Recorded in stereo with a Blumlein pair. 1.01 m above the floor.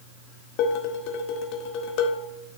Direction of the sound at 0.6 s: 40° left.